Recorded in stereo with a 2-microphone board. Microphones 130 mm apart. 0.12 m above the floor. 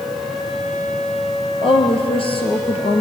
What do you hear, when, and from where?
1.6 s a woman speaking: 45° left (ahead or behind), 2.5 m